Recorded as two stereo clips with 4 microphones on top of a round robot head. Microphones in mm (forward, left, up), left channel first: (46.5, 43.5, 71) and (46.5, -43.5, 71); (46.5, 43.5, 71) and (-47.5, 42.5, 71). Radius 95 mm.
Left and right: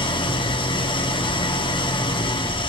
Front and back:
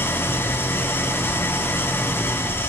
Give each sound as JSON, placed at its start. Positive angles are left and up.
{"t": 0.0, "sound": "an engine running", "azimuth_deg": 70, "distance_m": 1.3}